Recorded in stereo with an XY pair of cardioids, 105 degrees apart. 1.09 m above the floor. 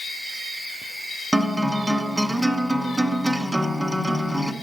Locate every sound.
1.3 s a guitar: 15° right, 0.9 m